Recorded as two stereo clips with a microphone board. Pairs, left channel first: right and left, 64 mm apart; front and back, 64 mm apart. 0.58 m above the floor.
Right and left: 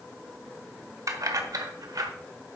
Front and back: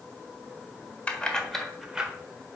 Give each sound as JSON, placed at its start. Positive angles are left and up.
{"t": 1.1, "sound": "keys jangling", "azimuth_deg": 70, "distance_m": 1.5}